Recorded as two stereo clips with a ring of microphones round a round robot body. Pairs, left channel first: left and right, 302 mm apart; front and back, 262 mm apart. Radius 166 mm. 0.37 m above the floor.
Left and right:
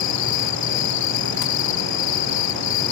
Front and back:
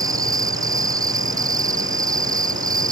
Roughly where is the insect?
Left.